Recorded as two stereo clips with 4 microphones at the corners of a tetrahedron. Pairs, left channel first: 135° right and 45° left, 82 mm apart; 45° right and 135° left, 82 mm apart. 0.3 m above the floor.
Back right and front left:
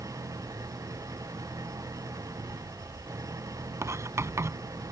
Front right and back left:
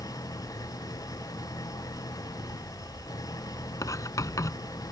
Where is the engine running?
Straight ahead.